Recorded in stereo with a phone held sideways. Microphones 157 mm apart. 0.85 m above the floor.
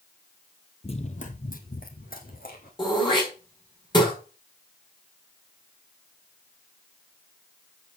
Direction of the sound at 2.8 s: 30° left (ahead or behind).